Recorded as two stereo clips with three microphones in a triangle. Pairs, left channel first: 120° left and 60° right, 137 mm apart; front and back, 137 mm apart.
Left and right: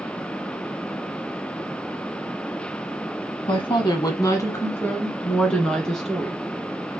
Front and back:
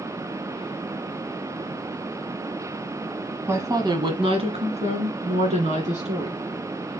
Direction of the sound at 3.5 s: 120° left.